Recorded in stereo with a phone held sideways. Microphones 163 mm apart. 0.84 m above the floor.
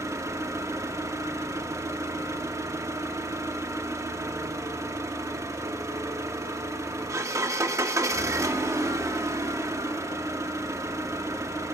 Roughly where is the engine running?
Centre.